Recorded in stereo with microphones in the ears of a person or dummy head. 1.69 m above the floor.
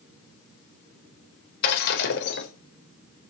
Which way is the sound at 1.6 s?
60° left (ahead or behind).